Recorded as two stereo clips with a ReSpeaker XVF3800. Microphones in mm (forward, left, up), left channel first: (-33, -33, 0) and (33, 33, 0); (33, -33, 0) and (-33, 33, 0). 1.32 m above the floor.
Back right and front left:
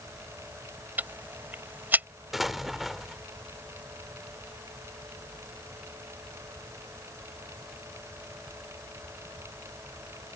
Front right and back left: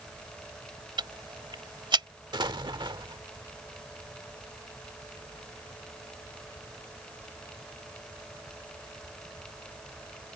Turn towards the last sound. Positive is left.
turn(degrees=130)